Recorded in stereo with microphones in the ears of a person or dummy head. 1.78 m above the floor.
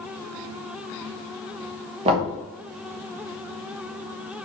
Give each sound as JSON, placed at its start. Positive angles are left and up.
{"t": 2.0, "sound": "knocking", "side_deg": -35, "distance_m": 1.3}